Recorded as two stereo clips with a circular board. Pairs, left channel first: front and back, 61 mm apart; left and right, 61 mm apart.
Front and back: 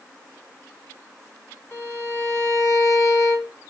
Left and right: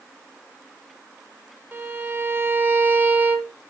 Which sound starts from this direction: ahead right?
A violin, at 1.7 s.